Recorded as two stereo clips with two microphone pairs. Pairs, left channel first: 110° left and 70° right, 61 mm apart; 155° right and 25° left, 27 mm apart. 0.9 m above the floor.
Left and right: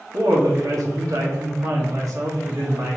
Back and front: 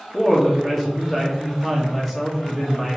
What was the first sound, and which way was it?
A woman speaking, 65° right.